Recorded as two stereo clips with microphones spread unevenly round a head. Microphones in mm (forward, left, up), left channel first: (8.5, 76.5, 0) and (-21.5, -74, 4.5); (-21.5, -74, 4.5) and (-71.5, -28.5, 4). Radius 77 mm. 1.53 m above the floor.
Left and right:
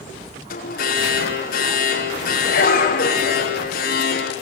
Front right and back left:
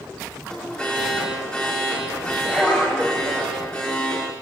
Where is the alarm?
40° left, 5 m.